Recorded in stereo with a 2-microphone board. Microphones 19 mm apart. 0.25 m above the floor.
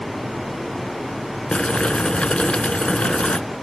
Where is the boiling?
75° left (ahead or behind), 0.6 m.